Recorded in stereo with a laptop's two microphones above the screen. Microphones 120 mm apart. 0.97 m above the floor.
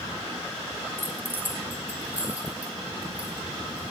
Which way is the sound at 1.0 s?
20° right (ahead or behind).